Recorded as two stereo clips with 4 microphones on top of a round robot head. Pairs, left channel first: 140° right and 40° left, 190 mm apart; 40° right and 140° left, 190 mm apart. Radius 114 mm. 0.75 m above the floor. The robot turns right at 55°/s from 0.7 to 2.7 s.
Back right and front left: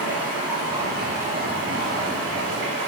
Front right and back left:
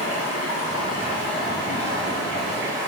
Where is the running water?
45° right, 1.6 m; by 2.9 s 65° left, 1.6 m.